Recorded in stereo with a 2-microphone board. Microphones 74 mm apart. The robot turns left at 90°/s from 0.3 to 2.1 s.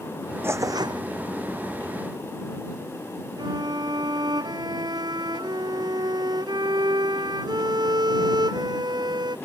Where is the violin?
65° right (ahead or behind).